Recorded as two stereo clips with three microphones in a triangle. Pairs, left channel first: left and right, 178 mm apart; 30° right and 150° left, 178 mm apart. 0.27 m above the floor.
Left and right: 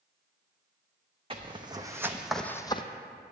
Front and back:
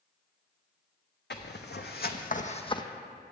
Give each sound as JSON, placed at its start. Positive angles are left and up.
{"t": 1.3, "sound": "footsteps", "azimuth_deg": -30, "distance_m": 1.0}